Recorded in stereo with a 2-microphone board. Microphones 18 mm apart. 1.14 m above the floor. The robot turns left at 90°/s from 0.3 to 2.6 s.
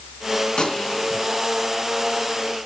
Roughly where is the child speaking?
I don't hear a child speaking.